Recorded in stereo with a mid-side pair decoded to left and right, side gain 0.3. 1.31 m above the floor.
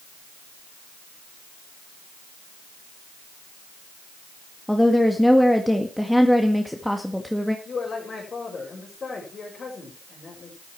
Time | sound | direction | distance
4.7 | a woman speaking | 5° left | 1.9 m
7.7 | a man speaking | 60° left | 5.5 m